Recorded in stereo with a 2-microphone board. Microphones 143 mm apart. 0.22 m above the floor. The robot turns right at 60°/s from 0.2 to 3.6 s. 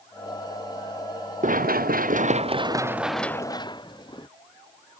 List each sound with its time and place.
1.4 s running footsteps: 65° right (ahead or behind); by 4.3 s 30° left (ahead or behind)